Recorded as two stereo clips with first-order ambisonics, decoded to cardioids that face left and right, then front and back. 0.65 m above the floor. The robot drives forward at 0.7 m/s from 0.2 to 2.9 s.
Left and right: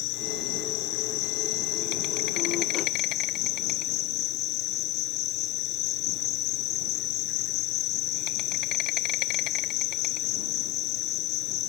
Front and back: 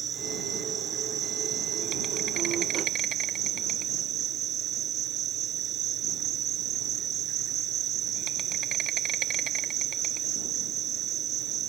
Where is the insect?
115° left; by 11.7 s 125° left.